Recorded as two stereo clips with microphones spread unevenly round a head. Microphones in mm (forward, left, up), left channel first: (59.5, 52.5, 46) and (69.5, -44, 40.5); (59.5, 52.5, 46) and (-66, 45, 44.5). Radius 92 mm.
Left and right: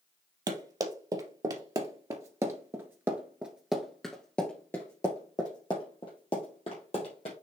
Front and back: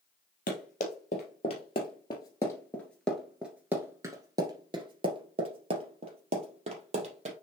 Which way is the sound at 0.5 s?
40° right.